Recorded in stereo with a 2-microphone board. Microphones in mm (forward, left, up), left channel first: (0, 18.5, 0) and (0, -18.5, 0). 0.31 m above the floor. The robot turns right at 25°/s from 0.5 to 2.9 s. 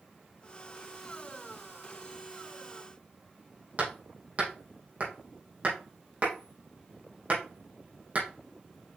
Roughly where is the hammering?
Right.